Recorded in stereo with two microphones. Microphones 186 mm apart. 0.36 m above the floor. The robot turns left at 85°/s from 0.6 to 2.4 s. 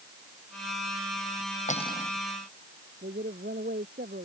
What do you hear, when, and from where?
1.7 s cutlery clinking: 40° left; by 2.1 s 5° left
3.0 s a woman speaking: 60° right (ahead or behind)